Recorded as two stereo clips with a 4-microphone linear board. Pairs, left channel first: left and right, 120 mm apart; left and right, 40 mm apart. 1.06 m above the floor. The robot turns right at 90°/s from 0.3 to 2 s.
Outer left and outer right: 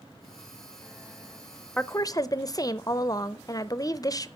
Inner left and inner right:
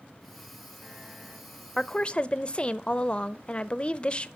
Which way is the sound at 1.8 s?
10° left (ahead or behind).